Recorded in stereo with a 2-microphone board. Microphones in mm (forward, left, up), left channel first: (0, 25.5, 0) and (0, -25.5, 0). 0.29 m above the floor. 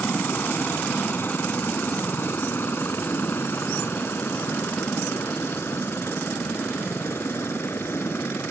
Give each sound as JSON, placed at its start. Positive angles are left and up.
{"t": 0.0, "sound": "a helicopter", "side_deg": 45}